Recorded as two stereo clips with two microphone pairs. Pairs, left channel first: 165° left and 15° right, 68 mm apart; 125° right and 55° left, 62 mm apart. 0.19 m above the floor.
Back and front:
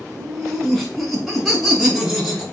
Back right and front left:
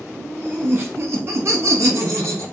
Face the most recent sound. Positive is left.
turn(degrees=80)